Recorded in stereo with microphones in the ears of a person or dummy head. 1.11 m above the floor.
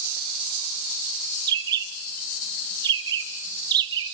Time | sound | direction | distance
1.5 | a bird | 25° right (ahead or behind) | 1.5 m